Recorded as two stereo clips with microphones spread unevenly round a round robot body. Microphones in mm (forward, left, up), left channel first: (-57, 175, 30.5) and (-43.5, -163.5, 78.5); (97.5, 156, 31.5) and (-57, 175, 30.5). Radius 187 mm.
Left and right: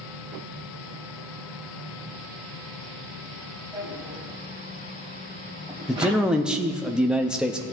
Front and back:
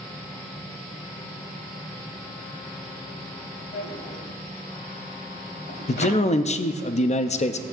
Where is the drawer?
10° right, 1.8 m.